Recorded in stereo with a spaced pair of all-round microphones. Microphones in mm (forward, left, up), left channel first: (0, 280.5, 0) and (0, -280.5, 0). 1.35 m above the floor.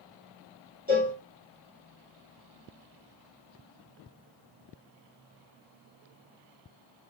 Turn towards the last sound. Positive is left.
turn(degrees=-15)  # may be behind; listen again after turning